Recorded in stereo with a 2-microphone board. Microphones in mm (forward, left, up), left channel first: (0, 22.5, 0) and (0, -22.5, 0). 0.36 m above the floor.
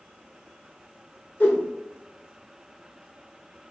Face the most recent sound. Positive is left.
turn(degrees=40)  # may be behind; listen again after turning